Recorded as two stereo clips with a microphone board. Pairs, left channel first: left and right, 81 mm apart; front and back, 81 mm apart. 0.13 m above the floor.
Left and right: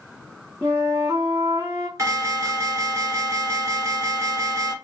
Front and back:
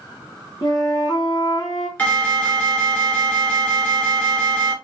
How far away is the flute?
About 2.5 m.